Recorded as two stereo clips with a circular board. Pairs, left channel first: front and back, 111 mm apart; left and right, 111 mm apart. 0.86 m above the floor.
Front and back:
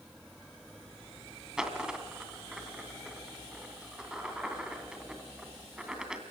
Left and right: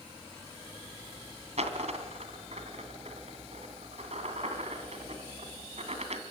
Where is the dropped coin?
95° right, 2.5 m.